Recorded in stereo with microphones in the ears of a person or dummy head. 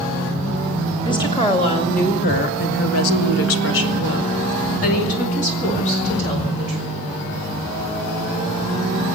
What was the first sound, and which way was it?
A woman speaking, 20° left (ahead or behind).